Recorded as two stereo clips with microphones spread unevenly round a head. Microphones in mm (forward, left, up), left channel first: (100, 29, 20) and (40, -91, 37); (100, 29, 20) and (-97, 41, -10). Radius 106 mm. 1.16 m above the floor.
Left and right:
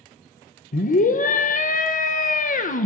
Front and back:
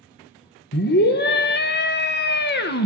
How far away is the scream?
About 0.6 m.